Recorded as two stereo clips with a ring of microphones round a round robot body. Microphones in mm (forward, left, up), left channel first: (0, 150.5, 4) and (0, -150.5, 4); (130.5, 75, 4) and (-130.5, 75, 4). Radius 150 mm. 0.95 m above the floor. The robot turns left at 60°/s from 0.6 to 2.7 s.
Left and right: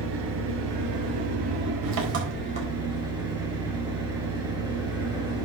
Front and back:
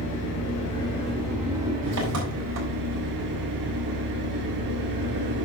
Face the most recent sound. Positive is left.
turn(degrees=-165)